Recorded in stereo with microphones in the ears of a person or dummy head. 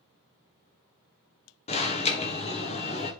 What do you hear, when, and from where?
1.7 s an alarm: 30° left (ahead or behind), 1.4 m